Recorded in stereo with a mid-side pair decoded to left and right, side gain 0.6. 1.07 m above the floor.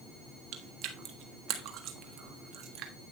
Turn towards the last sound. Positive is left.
turn(degrees=-65)